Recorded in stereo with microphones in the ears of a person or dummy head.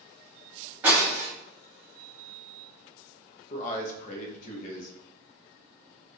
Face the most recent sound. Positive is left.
turn(degrees=50)  # may be behind; listen again after turning